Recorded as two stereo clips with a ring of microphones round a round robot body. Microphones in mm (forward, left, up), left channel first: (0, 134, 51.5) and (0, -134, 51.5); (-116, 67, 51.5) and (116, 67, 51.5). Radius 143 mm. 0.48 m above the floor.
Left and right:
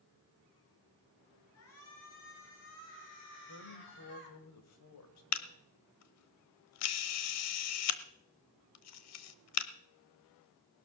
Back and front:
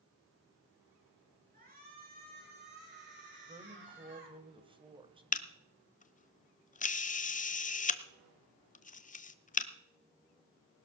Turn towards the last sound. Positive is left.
turn(degrees=120)